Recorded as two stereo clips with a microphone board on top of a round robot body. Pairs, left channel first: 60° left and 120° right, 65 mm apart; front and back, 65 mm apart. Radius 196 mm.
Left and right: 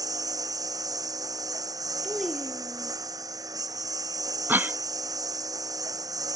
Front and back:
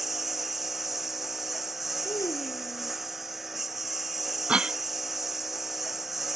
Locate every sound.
0.0 s a lawn mower: 90° right
2.0 s a child speaking: 25° right
4.5 s a cough: 120° right